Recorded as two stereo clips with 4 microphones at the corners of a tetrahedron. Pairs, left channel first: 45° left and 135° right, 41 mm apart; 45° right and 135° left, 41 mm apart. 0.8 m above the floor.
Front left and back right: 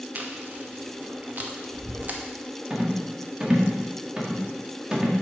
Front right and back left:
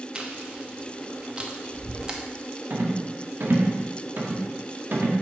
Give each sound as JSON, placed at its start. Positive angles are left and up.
{"t": 0.1, "sound": "chewing", "azimuth_deg": -165, "distance_m": 1.0}
{"t": 2.7, "sound": "a rattle", "azimuth_deg": 160, "distance_m": 1.5}